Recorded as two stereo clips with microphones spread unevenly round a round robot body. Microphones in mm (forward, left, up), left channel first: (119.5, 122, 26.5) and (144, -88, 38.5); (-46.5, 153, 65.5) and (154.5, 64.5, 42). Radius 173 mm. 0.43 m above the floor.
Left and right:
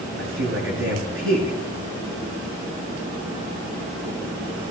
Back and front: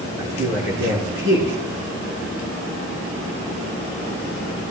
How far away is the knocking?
No knocking in this recording.